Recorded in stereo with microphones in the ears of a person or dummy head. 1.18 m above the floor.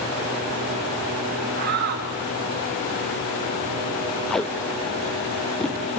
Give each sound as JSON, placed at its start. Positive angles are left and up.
{"t": 1.6, "sound": "a shout", "side_deg": -50, "distance_m": 3.5}
{"t": 4.3, "sound": "tape being pulled", "side_deg": 5, "distance_m": 0.6}